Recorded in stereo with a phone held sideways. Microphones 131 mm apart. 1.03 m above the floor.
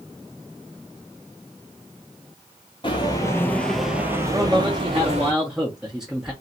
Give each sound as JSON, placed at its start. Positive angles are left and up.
{"t": 2.8, "sound": "footsteps", "side_deg": 35, "distance_m": 1.2}
{"t": 4.3, "sound": "a man speaking", "side_deg": -5, "distance_m": 0.8}